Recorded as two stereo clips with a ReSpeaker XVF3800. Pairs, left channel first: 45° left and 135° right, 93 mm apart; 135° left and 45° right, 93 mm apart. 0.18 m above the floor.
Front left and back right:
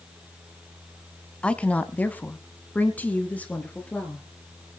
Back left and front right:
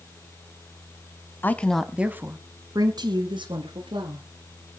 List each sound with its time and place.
1.4 s a woman speaking: 105° left, 1.1 m; by 4.2 s 30° right, 3 m